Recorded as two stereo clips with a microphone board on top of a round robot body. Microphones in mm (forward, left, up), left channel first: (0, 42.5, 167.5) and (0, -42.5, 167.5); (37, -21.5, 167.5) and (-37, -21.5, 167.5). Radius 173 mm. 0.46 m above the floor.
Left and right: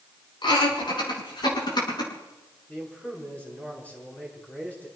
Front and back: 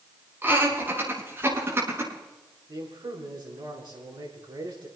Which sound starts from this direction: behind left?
Laughter, at 0.4 s.